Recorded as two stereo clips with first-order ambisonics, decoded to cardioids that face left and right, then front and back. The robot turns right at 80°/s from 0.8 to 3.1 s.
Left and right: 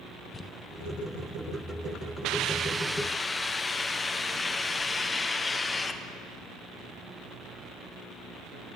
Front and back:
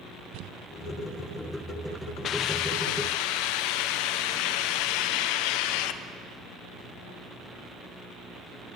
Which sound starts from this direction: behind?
Crumpling, at 0.3 s.